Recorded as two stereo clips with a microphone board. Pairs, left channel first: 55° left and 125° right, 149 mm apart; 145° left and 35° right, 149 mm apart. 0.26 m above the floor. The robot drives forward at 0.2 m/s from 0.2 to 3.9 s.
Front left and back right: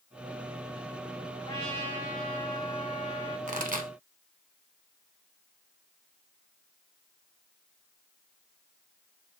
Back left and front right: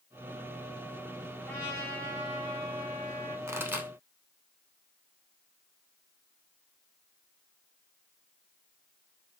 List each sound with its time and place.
1.4 s a trumpet: 75° left, 1.8 m; by 3.4 s 95° left, 1.8 m
3.5 s a pop: 105° right, 0.6 m; by 3.9 s 110° right, 0.6 m